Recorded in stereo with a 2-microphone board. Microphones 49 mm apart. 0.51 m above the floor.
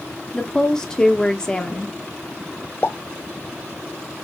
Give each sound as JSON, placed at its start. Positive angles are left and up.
{"t": 0.3, "sound": "a woman speaking", "side_deg": 15, "distance_m": 0.7}
{"t": 2.8, "sound": "a pop", "side_deg": 40, "distance_m": 0.7}